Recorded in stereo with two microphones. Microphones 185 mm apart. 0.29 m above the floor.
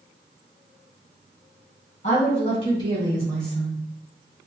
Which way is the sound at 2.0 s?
40° left (ahead or behind).